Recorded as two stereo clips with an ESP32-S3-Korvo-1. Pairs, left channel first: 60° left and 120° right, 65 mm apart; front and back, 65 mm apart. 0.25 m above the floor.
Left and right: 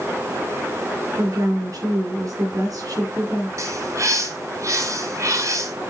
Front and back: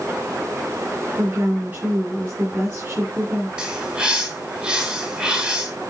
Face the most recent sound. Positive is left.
turn(degrees=-110)